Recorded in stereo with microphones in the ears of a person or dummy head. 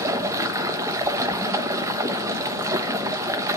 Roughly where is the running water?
Centre.